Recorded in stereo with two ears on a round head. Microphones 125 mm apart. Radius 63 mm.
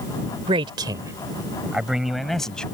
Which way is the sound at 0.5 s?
40° right (ahead or behind).